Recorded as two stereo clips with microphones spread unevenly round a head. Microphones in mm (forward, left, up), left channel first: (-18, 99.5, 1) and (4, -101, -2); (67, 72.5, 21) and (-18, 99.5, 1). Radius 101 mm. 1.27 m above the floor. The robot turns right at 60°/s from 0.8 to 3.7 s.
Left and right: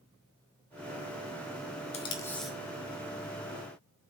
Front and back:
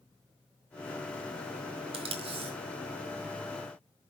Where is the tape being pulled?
155° left, 1.9 m; by 2.5 s 170° right, 1.9 m.